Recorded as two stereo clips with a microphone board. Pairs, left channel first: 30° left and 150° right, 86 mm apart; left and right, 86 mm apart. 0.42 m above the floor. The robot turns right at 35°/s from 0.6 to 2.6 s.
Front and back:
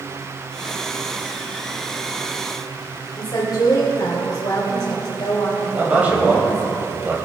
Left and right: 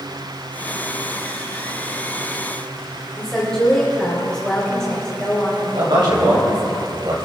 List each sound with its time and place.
3.2 s a woman speaking: 10° left, 2.0 m
5.8 s a man speaking: 80° right, 2.5 m